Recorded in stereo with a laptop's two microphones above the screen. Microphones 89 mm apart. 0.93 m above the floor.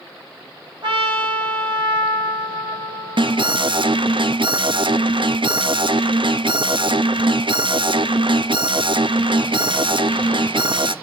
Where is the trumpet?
65° right (ahead or behind), 3 m.